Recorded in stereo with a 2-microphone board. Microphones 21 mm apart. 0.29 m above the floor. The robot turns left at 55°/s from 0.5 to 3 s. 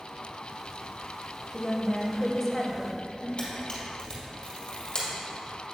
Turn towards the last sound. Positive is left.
turn(degrees=45)  # may be behind; listen again after turning